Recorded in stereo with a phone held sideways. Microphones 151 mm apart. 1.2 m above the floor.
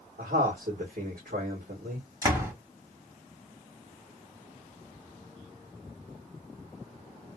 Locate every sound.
0.2 s a man speaking: 75° right (ahead or behind), 1.6 m
2.2 s a door slam: 20° right (ahead or behind), 1.7 m